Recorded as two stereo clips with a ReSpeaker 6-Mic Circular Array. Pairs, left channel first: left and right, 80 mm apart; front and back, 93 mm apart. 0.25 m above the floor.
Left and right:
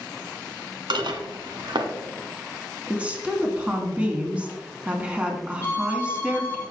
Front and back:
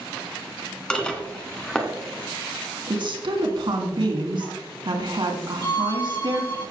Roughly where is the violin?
Ahead left.